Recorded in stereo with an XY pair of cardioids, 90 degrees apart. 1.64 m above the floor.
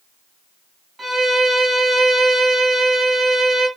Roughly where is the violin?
Ahead right.